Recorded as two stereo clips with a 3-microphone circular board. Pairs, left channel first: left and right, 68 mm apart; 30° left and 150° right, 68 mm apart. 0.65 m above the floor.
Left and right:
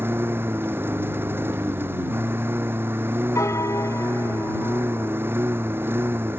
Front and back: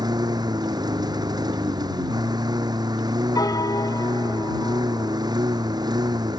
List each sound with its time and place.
0.0 s a lawn mower: 145° right
3.4 s a piano: 50° left